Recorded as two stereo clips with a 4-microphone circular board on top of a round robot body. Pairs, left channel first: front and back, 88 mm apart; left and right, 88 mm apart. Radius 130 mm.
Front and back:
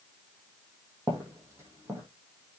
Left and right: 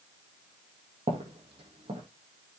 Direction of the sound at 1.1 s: 115° right.